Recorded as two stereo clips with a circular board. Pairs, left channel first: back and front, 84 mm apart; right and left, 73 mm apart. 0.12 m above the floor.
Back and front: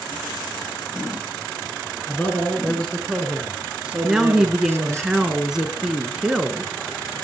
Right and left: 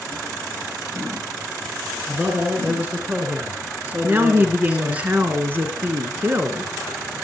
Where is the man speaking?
135° left, 2.0 m; by 5.0 s 30° left, 2 m.